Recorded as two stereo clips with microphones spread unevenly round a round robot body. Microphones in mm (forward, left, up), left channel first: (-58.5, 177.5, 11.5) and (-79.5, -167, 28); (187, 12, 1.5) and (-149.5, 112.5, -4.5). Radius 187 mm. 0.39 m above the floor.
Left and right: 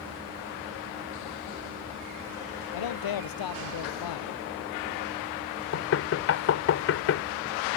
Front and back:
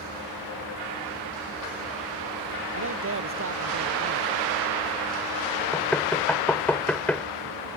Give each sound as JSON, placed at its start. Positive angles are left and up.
{"t": 2.7, "sound": "a man speaking", "azimuth_deg": 110}
{"t": 5.7, "sound": "knocking", "azimuth_deg": 70}